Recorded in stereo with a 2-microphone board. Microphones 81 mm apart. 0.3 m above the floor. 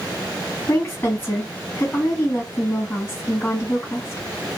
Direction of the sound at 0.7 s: 25° left (ahead or behind).